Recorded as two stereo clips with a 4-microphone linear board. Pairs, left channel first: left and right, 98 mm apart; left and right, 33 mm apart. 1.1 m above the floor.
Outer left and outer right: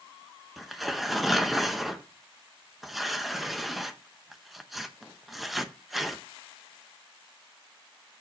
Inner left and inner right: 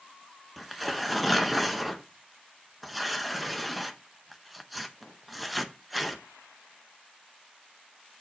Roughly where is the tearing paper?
Centre.